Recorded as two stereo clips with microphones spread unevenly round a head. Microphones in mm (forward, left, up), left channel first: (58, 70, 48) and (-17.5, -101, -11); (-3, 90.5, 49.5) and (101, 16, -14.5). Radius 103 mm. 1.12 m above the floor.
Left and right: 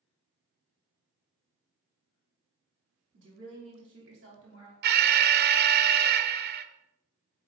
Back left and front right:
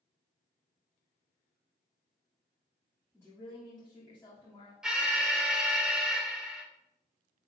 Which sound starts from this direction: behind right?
A woman speaking, at 3.1 s.